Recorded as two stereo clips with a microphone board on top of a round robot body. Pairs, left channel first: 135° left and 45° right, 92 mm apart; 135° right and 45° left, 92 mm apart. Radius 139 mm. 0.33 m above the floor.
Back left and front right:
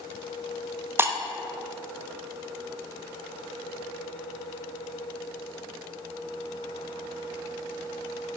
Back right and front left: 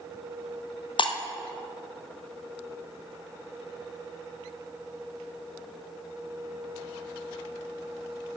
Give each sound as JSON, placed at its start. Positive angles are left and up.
{"t": 1.0, "sound": "breaking glass", "azimuth_deg": -110, "distance_m": 0.8}